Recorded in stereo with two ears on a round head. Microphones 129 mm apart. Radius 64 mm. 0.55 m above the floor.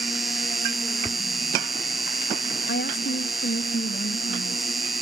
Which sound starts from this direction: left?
A woman speaking, at 2.7 s.